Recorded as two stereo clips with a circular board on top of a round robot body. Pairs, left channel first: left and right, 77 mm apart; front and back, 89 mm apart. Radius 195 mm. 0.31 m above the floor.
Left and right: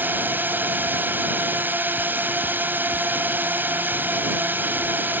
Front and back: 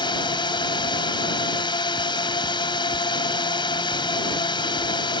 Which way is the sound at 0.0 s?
25° right.